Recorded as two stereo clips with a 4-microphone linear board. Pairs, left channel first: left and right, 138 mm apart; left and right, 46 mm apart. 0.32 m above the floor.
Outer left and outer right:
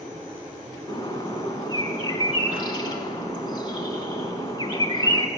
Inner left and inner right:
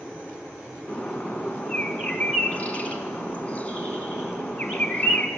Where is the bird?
30° left (ahead or behind), 0.9 m.